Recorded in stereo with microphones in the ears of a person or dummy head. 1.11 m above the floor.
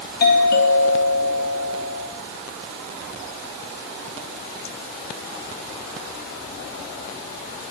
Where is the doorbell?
45° left (ahead or behind), 1.8 m.